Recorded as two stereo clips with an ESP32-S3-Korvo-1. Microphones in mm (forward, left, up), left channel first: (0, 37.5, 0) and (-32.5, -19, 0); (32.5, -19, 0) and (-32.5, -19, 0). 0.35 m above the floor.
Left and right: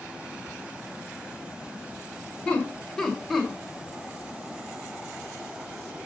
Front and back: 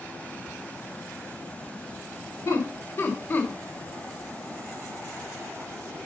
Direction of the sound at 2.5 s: 5° right.